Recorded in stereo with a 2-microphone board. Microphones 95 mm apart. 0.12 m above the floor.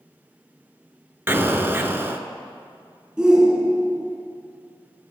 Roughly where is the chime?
I don't hear a chime.